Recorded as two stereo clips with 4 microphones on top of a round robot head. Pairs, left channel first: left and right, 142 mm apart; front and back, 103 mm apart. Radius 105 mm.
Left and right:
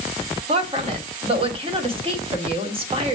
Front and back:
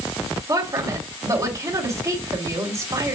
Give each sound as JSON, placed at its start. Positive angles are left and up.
{"t": 0.5, "sound": "a woman speaking", "azimuth_deg": -130, "distance_m": 1.5}